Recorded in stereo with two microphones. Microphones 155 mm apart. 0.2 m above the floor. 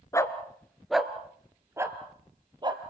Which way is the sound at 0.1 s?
20° left (ahead or behind).